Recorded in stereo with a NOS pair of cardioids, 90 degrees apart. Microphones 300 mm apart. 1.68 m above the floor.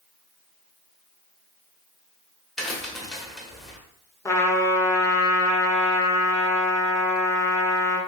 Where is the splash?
I don't hear a splash.